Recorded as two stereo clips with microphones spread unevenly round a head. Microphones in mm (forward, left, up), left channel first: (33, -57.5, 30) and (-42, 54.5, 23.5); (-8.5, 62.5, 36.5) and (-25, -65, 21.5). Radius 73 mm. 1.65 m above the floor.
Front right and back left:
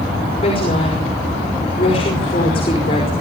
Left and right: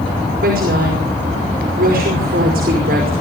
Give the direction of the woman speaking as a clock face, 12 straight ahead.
4 o'clock.